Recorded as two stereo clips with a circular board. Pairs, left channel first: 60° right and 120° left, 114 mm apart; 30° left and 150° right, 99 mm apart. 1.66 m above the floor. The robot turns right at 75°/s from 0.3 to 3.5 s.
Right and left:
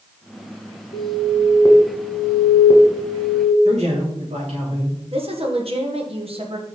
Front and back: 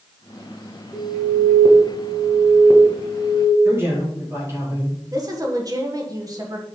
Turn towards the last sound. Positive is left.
turn(degrees=160)